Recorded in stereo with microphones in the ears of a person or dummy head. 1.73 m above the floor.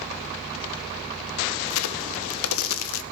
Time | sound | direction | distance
1.7 | a crack | 85° left | 1.0 m